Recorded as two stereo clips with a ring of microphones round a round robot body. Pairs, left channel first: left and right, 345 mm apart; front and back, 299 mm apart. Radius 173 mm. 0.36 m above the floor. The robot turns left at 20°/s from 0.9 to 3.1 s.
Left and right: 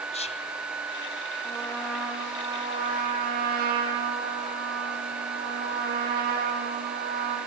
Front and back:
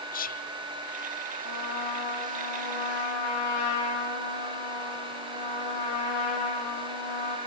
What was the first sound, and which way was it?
Whispering, 30° left.